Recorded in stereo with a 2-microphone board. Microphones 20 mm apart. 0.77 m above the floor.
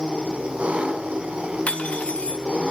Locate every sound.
0.0 s an engine running: 80° right, 3.5 m
1.7 s cutlery clinking: 85° left, 1.4 m